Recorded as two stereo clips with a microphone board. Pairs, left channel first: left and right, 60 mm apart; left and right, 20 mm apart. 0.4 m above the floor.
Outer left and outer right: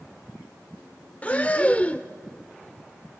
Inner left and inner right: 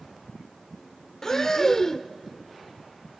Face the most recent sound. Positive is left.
turn(degrees=20)  # may be behind; listen again after turning